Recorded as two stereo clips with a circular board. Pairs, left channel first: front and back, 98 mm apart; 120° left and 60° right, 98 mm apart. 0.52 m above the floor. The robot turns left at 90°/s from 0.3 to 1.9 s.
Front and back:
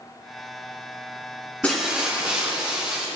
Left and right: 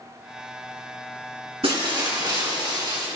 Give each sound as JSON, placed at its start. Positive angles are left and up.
{"t": 1.6, "sound": "breaking glass", "azimuth_deg": -75, "distance_m": 3.5}